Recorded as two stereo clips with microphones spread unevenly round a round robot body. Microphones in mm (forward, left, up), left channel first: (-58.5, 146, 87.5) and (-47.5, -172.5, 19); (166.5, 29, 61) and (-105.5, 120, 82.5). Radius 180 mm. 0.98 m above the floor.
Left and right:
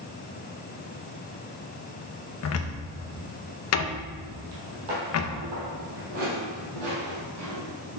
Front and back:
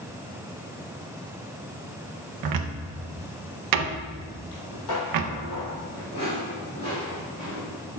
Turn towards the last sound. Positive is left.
turn(degrees=-110)